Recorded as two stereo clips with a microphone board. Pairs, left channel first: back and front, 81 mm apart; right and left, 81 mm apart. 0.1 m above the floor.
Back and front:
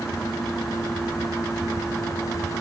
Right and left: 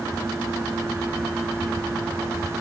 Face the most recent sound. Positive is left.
No sound to turn to.